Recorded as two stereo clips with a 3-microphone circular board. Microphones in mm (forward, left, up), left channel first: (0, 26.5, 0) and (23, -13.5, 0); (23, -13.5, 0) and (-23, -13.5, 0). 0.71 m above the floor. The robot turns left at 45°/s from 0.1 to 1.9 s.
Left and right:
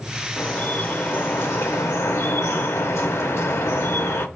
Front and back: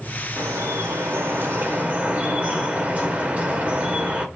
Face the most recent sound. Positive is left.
turn(degrees=125)